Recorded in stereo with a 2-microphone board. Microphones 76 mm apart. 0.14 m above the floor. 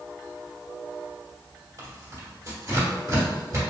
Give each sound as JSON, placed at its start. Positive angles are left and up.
{"t": 1.8, "sound": "tearing paper", "side_deg": -45, "distance_m": 1.5}